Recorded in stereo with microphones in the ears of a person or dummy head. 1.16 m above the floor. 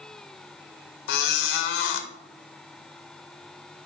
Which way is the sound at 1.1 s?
70° left (ahead or behind).